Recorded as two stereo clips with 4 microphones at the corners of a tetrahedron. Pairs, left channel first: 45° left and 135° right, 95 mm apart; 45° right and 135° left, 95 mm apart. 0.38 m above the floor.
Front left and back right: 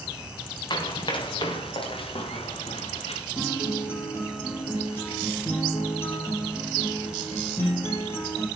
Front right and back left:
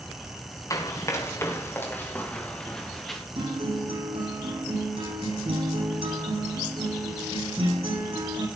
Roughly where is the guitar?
Behind left.